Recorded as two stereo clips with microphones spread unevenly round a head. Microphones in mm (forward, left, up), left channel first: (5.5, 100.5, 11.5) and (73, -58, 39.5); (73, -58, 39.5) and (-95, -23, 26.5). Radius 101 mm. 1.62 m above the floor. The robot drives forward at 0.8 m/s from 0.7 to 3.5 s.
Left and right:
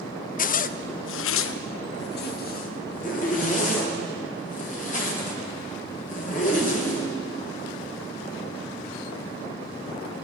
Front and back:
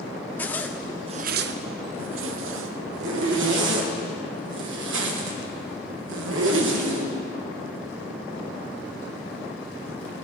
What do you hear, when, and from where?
0.4 s a zipper: 70° left, 0.5 m; by 7.1 s 165° left, 2 m